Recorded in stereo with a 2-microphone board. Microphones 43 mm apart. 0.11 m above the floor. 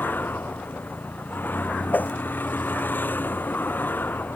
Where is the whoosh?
45° left (ahead or behind).